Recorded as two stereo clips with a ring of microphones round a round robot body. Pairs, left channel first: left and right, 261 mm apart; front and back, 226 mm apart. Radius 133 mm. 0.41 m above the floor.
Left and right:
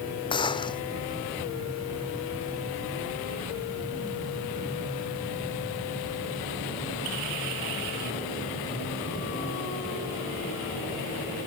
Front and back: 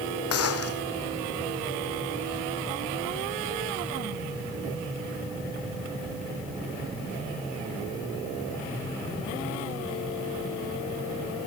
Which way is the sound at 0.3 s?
15° left.